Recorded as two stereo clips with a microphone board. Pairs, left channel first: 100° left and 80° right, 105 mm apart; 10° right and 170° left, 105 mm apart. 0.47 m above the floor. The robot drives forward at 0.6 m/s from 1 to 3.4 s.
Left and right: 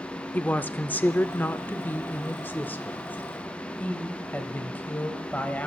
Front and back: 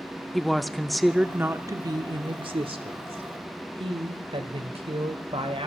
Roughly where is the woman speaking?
Left.